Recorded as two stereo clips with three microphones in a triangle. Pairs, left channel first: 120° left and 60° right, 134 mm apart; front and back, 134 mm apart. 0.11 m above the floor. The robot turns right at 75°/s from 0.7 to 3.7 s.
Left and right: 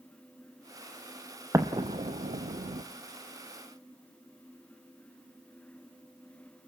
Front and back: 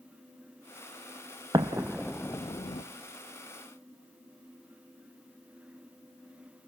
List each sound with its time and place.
1.5 s an explosion: 125° right, 1.5 m; by 2.8 s 30° right, 1.5 m